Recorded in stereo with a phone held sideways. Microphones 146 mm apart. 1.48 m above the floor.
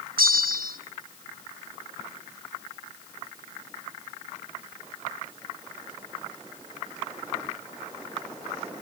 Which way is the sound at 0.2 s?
80° right.